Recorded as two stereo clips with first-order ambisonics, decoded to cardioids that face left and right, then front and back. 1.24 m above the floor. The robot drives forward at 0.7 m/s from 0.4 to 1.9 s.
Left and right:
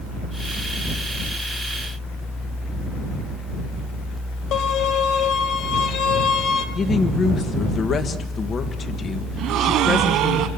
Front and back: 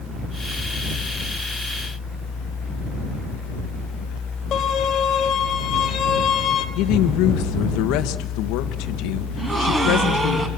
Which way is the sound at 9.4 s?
110° right.